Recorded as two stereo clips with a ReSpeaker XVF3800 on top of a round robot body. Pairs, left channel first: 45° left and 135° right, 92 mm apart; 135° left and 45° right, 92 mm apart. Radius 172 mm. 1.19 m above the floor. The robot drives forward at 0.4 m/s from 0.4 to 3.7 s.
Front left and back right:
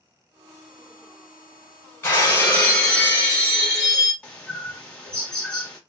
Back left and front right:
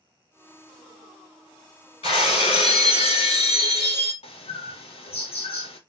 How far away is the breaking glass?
About 2 m.